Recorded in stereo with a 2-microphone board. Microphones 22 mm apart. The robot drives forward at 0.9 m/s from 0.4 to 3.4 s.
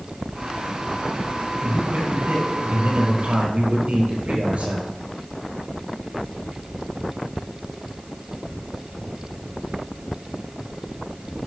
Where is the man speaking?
75° right (ahead or behind), 6 m; by 4.9 s 70° right (ahead or behind), 6.5 m.